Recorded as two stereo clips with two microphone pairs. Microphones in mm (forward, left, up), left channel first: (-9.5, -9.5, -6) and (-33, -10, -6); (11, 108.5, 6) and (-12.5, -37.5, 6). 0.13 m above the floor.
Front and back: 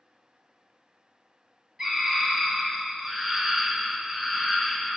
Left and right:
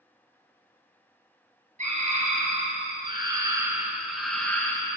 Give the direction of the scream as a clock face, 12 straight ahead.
4 o'clock.